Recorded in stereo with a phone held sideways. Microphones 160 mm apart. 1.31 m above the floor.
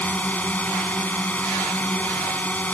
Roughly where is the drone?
Centre.